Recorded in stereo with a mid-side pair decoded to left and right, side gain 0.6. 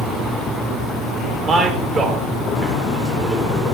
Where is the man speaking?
40° right, 3 m.